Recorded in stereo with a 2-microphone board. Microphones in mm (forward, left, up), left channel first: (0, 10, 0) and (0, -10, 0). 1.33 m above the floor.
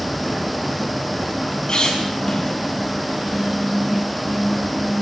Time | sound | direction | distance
1.7 | a squeak | 45° left (ahead or behind) | 7 m